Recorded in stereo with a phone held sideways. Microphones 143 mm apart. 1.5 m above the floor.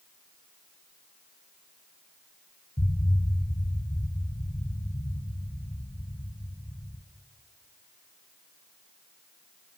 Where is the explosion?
45° left (ahead or behind), 2 m.